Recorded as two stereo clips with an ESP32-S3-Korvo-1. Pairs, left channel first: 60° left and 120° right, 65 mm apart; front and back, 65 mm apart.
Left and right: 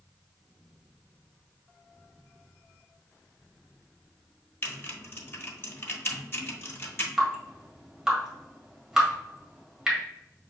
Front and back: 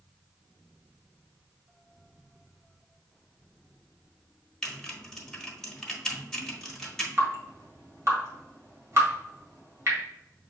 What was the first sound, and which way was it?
Typing on a keyboard, 80° left.